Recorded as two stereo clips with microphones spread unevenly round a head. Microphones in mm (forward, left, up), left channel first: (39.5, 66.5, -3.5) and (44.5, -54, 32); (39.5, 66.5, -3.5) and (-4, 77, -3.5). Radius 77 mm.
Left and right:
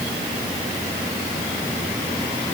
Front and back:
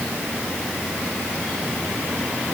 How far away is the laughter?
No laughter in this recording.